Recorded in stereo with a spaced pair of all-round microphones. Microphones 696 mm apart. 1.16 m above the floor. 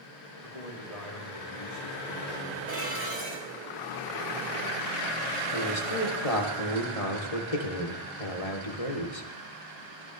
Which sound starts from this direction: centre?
Dishes clattering, at 2.7 s.